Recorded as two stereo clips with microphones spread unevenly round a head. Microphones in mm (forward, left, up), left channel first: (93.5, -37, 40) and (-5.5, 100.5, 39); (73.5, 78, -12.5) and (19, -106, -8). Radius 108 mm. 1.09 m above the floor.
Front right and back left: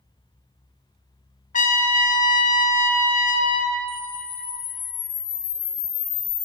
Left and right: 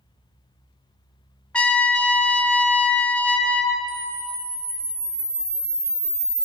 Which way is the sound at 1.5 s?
10° right.